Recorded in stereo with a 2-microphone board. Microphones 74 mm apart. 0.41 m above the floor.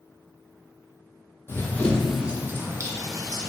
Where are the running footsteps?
35° left (ahead or behind), 0.6 m; by 3.5 s 60° right (ahead or behind), 1.0 m.